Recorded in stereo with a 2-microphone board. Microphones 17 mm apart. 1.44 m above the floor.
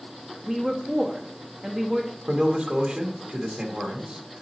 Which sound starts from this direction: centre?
A woman speaking, at 0.4 s.